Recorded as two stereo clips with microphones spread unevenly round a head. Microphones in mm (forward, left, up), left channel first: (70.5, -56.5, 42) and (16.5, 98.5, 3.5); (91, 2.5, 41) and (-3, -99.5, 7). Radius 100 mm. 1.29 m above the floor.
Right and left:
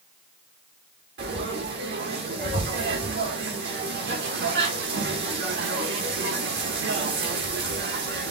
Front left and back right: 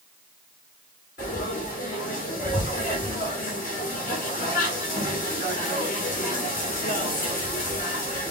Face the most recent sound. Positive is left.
turn(degrees=90)